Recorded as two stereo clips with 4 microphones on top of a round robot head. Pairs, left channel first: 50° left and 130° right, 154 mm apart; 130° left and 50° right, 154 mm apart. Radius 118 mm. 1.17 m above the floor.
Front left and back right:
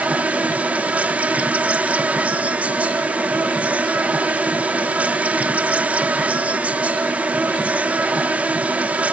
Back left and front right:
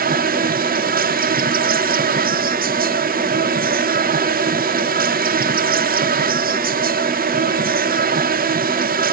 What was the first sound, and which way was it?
An insect, 45° right.